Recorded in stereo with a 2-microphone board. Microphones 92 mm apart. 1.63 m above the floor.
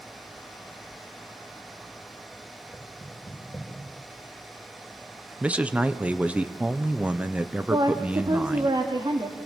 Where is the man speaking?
15° right (ahead or behind), 1.0 m.